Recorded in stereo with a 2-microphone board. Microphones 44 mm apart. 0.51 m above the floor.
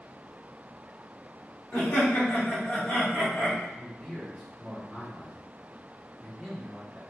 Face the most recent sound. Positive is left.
turn(degrees=-10)  # may be behind; listen again after turning